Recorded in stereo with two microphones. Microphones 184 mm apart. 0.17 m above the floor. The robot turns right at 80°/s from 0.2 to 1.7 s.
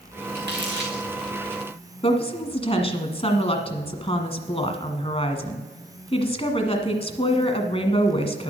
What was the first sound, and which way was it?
Crumpling, 60° right (ahead or behind).